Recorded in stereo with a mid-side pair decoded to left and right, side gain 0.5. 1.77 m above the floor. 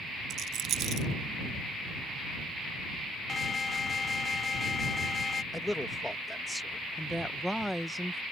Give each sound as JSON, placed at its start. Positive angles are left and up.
{"t": 0.3, "sound": "a rattle", "azimuth_deg": -65}
{"t": 3.3, "sound": "an alarm", "azimuth_deg": 35}
{"t": 5.5, "sound": "a man speaking", "azimuth_deg": 10}
{"t": 7.0, "sound": "a woman speaking", "azimuth_deg": 0}